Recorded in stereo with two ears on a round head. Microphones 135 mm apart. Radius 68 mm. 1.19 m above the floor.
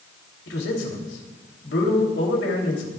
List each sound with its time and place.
0.5 s a man speaking: 80° left, 3 m